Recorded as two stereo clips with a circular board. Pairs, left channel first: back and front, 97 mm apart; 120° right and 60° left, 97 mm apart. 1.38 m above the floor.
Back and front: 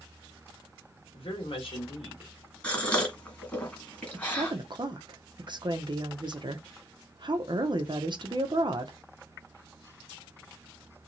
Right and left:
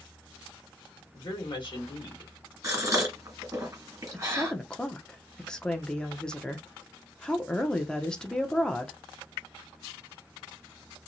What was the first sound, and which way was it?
A woman speaking, 155° right.